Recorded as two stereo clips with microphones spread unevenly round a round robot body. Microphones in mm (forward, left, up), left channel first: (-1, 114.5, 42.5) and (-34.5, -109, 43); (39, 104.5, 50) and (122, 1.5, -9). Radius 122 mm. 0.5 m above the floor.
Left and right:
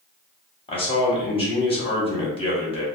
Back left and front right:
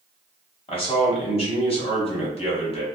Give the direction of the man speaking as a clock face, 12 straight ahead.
9 o'clock.